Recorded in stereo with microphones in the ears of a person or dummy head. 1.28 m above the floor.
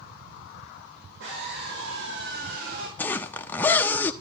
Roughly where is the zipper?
Centre.